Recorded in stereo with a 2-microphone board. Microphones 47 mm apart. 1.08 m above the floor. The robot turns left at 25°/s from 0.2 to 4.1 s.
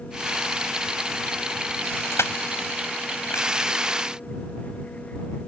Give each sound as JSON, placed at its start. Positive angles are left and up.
{"t": 2.1, "sound": "crushing", "side_deg": 75}